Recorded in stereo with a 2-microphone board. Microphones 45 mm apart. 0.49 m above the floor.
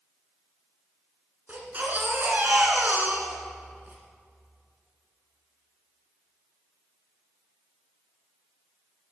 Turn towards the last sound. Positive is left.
turn(degrees=-40)  # may be behind; listen again after turning